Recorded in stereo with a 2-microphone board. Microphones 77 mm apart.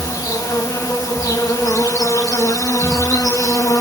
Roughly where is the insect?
Left.